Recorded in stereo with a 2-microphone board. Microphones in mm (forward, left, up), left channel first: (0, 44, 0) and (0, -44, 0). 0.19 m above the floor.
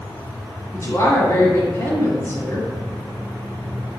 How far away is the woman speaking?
About 1.1 m.